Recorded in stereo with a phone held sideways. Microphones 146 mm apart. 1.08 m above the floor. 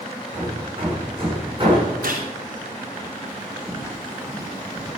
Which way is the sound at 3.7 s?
5° right (ahead or behind).